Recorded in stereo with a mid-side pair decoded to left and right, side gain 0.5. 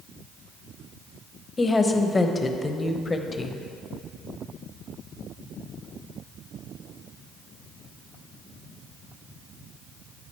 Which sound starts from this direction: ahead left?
A woman speaking, at 1.6 s.